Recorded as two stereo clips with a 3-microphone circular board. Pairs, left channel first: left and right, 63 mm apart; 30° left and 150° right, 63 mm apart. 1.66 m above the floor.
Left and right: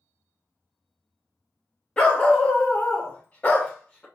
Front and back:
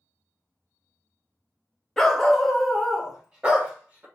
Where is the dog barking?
80° left, 1.0 m; by 4.0 s 150° left, 1.5 m.